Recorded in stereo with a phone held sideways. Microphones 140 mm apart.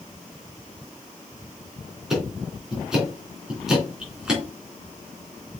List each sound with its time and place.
2.1 s ticking: 5° right (ahead or behind), 3.5 m